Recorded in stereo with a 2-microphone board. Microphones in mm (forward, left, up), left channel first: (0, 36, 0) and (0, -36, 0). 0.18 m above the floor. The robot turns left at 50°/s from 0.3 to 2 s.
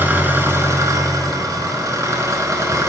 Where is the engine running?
35° right, 0.9 m; by 2.9 s 120° right, 0.9 m.